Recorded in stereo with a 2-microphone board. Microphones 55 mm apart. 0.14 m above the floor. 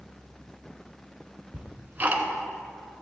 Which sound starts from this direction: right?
Ticking, at 1.5 s.